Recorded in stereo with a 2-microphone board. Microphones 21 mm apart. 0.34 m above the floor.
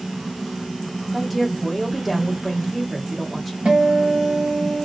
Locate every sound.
1.1 s a woman speaking: 5° right (ahead or behind), 1.1 m
3.6 s a guitar: 55° right (ahead or behind), 1.8 m